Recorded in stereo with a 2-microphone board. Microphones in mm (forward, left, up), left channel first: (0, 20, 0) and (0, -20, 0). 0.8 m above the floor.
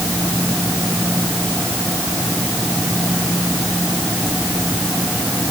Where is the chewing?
No chewing in this recording.